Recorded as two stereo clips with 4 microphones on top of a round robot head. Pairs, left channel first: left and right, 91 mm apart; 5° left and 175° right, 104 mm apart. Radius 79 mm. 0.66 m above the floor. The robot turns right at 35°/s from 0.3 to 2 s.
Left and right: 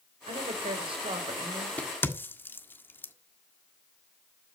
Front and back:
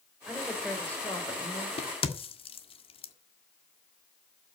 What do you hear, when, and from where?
0.3 s a woman speaking: 90° right, 3.5 m; by 1.7 s 45° right, 3.5 m
1.8 s a crack: 15° left, 1.6 m; by 3.1 s 25° left, 1.6 m